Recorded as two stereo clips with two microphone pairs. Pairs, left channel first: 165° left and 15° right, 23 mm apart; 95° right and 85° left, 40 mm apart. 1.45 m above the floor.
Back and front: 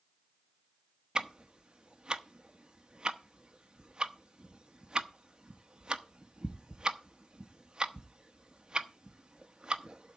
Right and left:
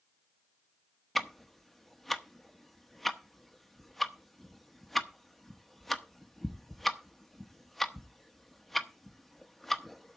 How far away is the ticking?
About 1.0 m.